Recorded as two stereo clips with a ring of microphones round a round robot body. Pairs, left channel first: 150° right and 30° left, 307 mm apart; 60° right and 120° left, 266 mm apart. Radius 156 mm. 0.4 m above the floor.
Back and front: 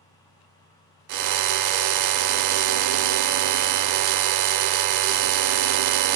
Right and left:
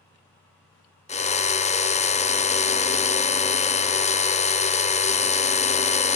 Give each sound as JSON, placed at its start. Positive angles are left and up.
{"t": 1.1, "sound": "a drill", "azimuth_deg": 5, "distance_m": 0.6}